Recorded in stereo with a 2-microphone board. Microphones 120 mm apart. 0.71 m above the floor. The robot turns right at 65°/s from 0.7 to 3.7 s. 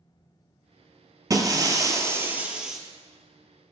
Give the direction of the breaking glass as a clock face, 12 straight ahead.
3 o'clock.